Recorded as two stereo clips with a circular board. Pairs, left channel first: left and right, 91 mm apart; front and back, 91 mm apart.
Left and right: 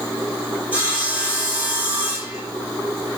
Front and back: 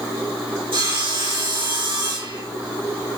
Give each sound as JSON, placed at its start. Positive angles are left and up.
{"t": 0.7, "sound": "sawing", "azimuth_deg": -165, "distance_m": 3.5}